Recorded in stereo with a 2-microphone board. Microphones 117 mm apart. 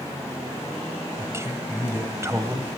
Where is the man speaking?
25° right (ahead or behind), 1.9 m.